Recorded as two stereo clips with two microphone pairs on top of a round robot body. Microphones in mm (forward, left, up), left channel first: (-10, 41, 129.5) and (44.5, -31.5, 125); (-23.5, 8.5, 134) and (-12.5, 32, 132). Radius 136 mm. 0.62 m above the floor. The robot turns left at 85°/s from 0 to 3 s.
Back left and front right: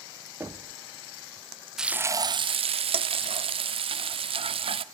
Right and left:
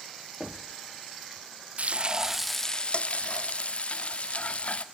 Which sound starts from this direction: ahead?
Knocking, at 0.4 s.